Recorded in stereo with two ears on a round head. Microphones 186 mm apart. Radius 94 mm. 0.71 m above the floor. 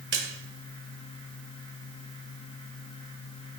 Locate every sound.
0.1 s a splash: 60° right (ahead or behind), 1.9 m